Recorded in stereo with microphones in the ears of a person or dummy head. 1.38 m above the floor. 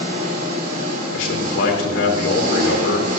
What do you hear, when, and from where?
0.0 s an engine running: 50° right (ahead or behind), 4.5 m
1.1 s a man speaking: 80° left, 4 m